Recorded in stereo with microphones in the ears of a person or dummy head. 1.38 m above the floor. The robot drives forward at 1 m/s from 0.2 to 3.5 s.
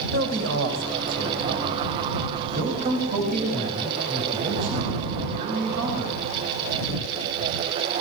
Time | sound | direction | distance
0.1 | a man speaking | 75° right (ahead or behind) | 5.5 m